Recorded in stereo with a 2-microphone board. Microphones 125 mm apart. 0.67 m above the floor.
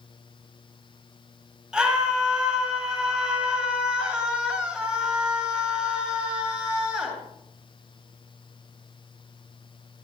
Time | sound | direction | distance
1.7 | a scream | 5° right (ahead or behind) | 8.5 m